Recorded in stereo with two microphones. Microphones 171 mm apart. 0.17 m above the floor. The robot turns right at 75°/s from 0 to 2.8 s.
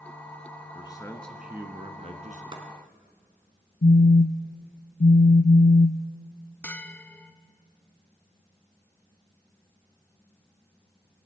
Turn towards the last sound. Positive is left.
turn(degrees=10)  # may be behind; listen again after turning